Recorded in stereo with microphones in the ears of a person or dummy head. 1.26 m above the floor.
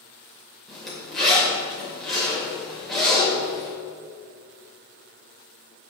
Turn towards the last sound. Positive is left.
turn(degrees=0)  # may be behind; listen again after turning